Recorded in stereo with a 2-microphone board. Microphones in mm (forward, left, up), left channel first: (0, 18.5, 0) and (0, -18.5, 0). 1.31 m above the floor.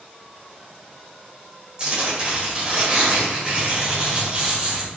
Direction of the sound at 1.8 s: 30° right (ahead or behind).